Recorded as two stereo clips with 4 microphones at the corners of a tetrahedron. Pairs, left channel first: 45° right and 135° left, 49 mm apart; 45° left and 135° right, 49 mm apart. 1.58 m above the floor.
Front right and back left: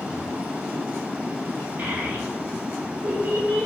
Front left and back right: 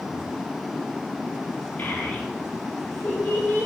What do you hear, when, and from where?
1.8 s a child speaking: 95° left, 4.5 m; by 3.7 s 110° left, 4.5 m